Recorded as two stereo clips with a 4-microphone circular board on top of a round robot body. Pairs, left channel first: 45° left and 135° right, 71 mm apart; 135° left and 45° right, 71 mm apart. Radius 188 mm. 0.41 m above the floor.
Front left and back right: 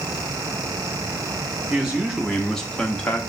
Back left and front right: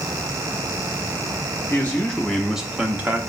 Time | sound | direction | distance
1.7 | a man speaking | 160° left | 1.0 m